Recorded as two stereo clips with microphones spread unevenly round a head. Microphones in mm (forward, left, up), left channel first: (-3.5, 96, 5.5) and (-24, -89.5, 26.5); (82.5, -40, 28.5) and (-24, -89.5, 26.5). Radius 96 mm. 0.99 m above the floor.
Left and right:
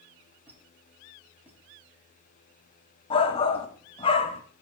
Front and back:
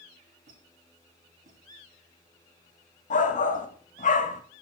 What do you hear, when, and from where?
0.5 s a squeak: straight behind, 6 m
3.1 s a shout: 20° left, 1.7 m